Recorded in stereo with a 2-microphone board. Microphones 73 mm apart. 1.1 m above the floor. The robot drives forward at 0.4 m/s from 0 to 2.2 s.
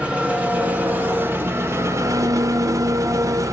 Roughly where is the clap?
No clap in this recording.